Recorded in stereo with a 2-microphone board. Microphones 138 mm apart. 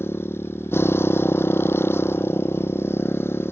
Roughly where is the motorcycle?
Centre.